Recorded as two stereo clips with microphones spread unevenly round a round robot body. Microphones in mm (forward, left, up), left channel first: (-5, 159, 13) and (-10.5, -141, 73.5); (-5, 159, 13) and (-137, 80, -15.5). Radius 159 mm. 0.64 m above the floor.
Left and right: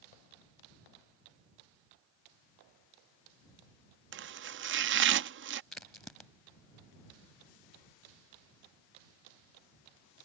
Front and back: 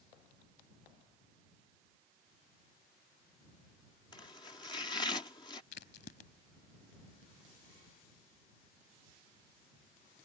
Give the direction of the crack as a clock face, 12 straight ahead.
12 o'clock.